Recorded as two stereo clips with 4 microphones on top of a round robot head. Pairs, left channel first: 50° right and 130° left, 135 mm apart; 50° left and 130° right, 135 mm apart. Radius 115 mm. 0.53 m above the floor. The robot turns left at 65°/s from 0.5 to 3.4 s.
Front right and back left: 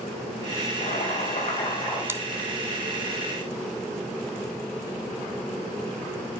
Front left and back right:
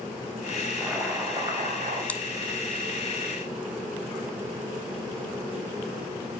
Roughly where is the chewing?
Left.